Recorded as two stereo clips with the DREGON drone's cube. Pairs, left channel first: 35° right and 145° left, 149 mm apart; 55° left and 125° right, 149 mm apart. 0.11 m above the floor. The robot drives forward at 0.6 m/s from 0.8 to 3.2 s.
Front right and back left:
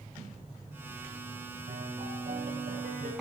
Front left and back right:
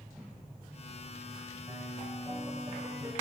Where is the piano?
170° left, 5.5 m.